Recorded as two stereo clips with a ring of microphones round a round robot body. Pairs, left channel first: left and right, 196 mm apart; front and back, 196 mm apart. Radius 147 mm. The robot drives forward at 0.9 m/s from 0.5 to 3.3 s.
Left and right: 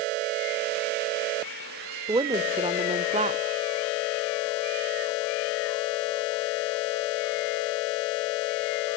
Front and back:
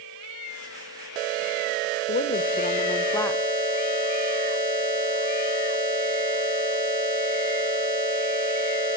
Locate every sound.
2.1 s a woman speaking: 25° right, 1.7 m; by 3.4 s 75° right, 1.1 m